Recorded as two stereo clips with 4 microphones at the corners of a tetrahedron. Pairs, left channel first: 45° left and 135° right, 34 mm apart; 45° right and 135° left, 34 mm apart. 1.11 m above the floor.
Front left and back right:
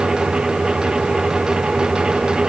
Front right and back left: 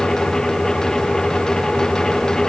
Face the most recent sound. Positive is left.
No sound to turn to.